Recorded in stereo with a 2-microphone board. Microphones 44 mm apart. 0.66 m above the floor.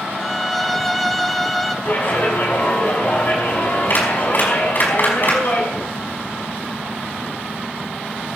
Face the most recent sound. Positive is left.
turn(degrees=50)  # may be behind; listen again after turning